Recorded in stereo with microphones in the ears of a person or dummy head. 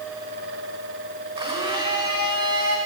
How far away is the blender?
About 3.5 m.